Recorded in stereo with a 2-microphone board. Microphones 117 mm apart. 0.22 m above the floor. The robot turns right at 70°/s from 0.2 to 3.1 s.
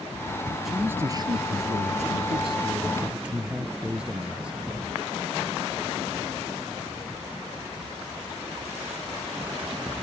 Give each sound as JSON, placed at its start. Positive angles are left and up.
{"t": 0.7, "sound": "a man speaking", "azimuth_deg": 180}